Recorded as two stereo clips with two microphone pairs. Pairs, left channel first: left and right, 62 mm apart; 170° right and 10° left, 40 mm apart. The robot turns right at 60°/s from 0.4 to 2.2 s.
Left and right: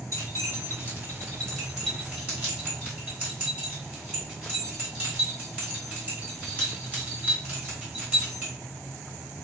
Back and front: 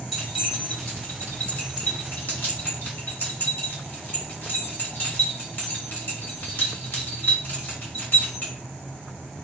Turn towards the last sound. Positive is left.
turn(degrees=-145)